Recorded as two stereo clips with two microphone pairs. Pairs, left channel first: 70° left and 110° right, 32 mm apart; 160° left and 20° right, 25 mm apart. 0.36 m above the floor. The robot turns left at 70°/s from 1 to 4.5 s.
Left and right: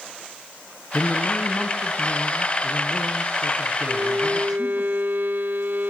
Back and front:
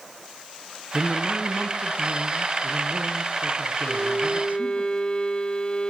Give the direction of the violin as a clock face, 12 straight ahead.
3 o'clock.